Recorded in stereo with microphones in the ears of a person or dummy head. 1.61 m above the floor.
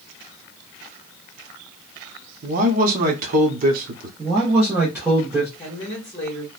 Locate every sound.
2.4 s a man speaking: 55° right (ahead or behind), 0.9 m
4.2 s a man speaking: 5° right (ahead or behind), 0.8 m
5.6 s a woman speaking: 15° left (ahead or behind), 1.2 m